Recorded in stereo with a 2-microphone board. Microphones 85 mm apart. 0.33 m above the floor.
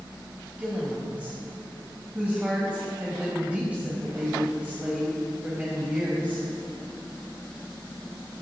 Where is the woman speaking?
15° right (ahead or behind), 1.9 m.